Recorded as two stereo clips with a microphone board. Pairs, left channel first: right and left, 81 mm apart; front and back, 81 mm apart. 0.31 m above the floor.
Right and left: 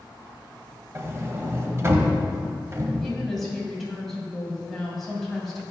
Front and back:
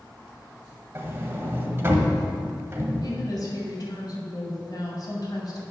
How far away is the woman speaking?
About 2.5 m.